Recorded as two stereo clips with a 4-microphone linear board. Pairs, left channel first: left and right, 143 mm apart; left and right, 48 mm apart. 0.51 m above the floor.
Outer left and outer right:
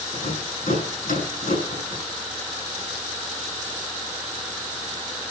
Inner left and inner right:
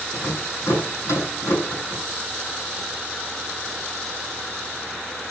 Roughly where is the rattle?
Left.